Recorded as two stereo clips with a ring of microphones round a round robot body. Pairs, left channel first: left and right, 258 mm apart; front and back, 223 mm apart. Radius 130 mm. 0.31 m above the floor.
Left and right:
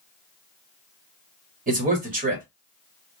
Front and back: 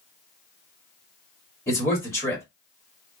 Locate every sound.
1.7 s a man speaking: 70° right, 1.2 m